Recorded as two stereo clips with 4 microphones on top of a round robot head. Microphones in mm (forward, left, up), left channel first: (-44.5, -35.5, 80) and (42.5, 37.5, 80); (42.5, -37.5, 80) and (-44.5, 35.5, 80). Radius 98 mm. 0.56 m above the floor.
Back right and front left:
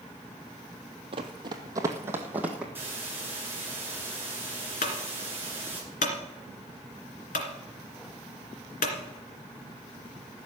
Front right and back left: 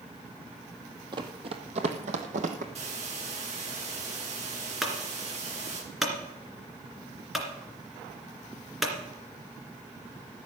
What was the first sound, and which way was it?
Running footsteps, 85° left.